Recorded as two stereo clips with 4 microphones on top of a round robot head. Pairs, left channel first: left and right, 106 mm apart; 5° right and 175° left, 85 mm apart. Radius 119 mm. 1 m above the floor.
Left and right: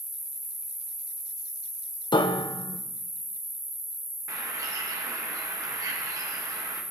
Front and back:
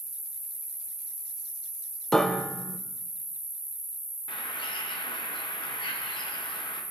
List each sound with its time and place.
0.0 s an insect: 35° right, 0.8 m
2.1 s a piano: 80° left, 0.8 m
4.3 s a bird: 30° right, 1.2 m